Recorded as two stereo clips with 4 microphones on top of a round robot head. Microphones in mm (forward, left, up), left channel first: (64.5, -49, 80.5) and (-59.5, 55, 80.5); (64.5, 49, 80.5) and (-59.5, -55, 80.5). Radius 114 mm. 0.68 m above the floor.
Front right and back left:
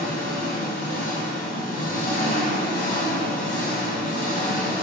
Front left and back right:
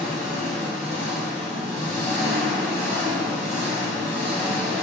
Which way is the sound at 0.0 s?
Straight ahead.